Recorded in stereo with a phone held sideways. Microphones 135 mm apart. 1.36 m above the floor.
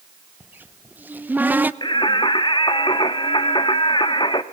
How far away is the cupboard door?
About 0.6 m.